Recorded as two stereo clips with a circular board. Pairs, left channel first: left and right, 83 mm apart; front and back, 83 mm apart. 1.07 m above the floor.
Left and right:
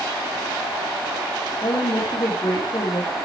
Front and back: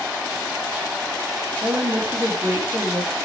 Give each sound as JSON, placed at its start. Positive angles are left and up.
{"t": 1.6, "sound": "a woman speaking", "azimuth_deg": 120, "distance_m": 3.0}